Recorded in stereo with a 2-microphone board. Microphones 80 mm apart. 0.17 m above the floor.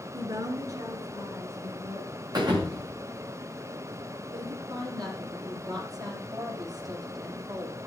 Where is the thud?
60° right (ahead or behind), 5.5 m.